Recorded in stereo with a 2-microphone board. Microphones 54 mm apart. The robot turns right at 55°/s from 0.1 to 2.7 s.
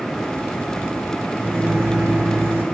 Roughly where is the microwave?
Behind right.